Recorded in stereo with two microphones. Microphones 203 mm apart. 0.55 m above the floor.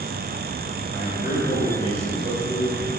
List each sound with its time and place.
0.9 s a man speaking: 25° right (ahead or behind), 2 m